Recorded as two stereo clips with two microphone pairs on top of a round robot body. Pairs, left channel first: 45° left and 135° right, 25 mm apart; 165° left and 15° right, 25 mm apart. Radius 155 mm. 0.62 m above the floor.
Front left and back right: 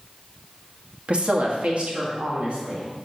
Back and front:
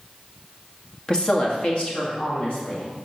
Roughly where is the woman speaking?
Behind right.